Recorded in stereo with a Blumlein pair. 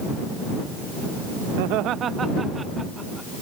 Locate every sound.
1.6 s laughter: 50° right; by 3.3 s 5° right